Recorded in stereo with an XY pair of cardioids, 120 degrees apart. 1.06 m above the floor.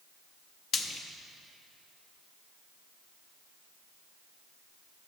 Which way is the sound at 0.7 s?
50° left.